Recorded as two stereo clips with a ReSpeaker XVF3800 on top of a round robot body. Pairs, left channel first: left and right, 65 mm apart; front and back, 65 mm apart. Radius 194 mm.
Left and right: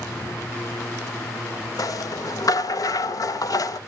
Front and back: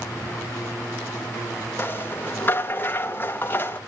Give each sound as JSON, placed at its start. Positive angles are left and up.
{"t": 1.8, "sound": "a rattle", "azimuth_deg": 60, "distance_m": 0.9}